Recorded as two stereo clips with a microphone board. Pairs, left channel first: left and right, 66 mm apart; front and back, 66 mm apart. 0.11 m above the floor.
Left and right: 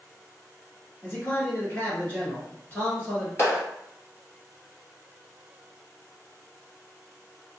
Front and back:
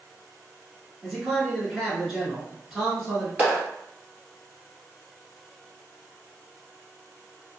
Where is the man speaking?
95° left, 1.7 m.